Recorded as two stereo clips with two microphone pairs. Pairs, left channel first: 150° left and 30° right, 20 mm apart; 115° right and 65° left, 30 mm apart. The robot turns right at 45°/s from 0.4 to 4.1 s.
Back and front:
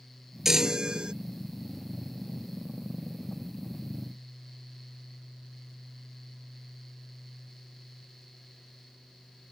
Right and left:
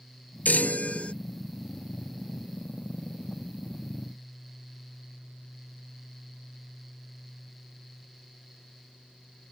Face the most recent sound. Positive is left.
turn(degrees=65)